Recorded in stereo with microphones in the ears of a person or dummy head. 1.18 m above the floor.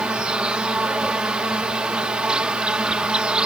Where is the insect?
10° right (ahead or behind).